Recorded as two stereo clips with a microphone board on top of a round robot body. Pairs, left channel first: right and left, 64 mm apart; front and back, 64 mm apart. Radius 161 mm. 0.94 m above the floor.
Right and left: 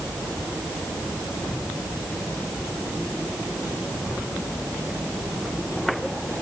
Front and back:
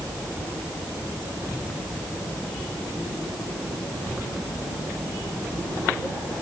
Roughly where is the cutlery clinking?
No cutlery clinking in this recording.